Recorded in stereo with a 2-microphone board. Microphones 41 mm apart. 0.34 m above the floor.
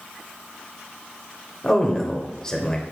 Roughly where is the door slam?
No door slam in this recording.